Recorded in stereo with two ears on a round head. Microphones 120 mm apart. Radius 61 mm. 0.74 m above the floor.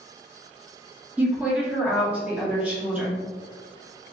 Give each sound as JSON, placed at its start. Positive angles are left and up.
{"t": 1.2, "sound": "a woman speaking", "side_deg": -10, "distance_m": 1.7}